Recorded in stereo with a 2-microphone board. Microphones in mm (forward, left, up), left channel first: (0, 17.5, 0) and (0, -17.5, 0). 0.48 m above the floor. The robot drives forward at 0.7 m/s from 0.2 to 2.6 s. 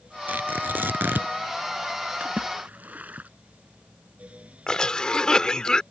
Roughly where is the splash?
Right.